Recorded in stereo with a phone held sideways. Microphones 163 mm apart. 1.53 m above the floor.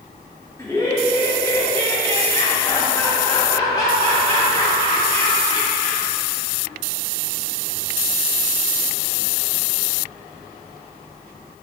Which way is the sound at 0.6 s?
20° left (ahead or behind).